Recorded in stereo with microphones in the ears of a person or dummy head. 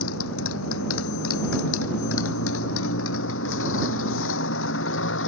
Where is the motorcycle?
90° left; by 5.3 s 75° left (ahead or behind).